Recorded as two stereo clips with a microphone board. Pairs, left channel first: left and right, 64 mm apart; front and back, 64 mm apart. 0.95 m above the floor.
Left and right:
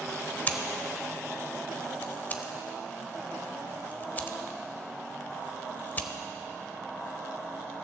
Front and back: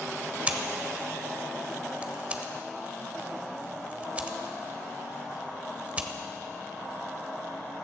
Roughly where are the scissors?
Behind left.